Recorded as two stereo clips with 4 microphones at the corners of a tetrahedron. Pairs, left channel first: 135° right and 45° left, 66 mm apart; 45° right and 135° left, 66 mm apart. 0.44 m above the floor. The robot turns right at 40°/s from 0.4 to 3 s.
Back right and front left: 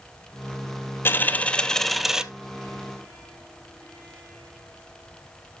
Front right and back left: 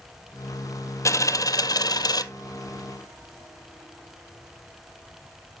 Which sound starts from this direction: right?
A dropped coin, at 1.1 s.